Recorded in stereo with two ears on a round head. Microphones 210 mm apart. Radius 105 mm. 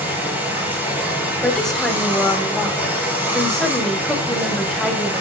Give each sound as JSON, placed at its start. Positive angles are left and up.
{"t": 0.0, "sound": "running water", "side_deg": -10, "distance_m": 3.5}
{"t": 1.4, "sound": "a woman speaking", "side_deg": 5, "distance_m": 2.5}